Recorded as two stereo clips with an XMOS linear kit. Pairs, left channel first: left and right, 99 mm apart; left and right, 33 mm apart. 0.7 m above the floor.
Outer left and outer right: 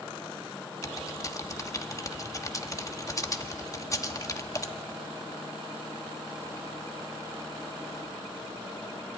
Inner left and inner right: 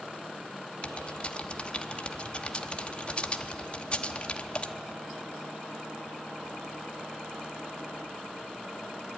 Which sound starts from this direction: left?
Typing on a keyboard, at 0.8 s.